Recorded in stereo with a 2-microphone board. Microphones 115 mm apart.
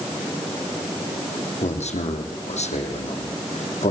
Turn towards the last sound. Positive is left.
turn(degrees=75)  # may be behind; listen again after turning